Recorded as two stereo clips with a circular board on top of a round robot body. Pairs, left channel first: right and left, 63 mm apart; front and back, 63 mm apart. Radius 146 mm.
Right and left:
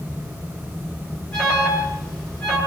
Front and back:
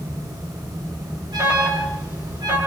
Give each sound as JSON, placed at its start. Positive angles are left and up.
{"t": 1.3, "sound": "an alarm", "azimuth_deg": -165, "distance_m": 8.5}